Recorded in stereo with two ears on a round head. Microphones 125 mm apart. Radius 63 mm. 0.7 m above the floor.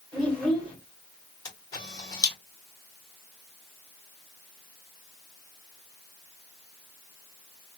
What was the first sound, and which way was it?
A child speaking, 5° left (ahead or behind).